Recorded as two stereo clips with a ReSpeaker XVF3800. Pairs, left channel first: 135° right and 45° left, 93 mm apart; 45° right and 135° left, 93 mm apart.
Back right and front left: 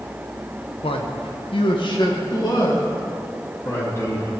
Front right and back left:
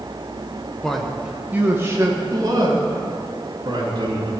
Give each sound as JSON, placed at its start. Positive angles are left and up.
{"t": 0.8, "sound": "a man speaking", "azimuth_deg": -130, "distance_m": 1.3}